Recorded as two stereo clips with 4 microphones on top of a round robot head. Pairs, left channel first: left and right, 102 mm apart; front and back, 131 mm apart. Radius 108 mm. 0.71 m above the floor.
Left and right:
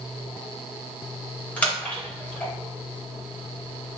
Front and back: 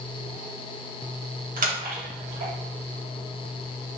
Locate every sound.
1.6 s a splash: 170° left, 2.0 m